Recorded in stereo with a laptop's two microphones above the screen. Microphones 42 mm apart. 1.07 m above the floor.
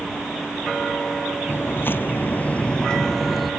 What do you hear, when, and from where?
1.5 s footsteps: 55° left (ahead or behind); by 3.5 s centre (ahead or behind)